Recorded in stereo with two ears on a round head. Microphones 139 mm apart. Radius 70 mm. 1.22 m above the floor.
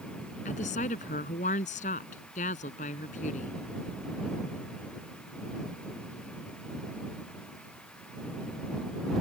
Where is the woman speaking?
50° left (ahead or behind).